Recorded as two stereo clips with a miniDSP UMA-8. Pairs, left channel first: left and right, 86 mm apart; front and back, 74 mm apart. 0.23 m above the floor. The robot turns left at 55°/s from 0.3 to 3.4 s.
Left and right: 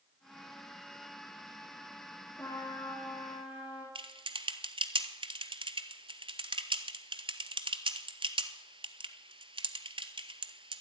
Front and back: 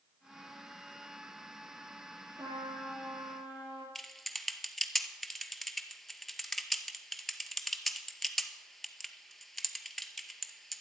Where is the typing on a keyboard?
85° right, 0.8 m.